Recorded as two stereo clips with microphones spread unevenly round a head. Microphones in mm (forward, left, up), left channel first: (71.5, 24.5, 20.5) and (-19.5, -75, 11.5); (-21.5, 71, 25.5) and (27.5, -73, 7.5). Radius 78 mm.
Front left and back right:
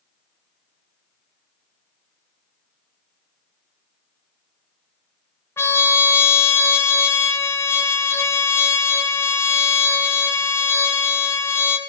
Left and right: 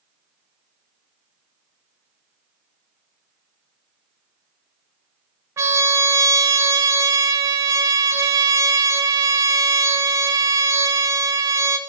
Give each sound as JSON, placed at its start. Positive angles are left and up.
{"t": 5.6, "sound": "a trumpet", "azimuth_deg": 0, "distance_m": 0.8}